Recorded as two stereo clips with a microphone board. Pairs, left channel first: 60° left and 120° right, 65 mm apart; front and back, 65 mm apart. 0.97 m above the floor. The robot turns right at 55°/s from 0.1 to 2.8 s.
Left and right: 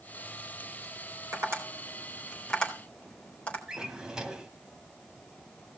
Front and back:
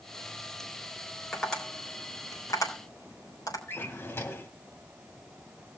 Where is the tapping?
90° right, 4 m; by 3.6 s 10° right, 4 m.